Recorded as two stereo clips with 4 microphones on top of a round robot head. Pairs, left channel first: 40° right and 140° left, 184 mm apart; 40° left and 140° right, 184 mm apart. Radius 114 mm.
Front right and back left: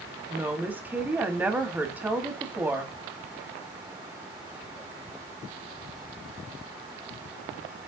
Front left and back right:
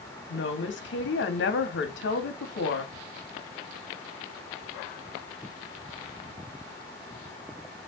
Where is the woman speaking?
60° left, 2 m.